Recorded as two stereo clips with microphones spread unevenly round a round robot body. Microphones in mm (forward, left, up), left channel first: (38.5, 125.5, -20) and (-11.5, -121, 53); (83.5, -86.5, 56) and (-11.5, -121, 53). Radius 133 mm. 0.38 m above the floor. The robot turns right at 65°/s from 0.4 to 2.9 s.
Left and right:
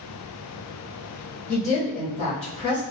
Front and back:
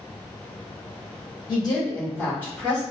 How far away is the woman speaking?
About 1.3 m.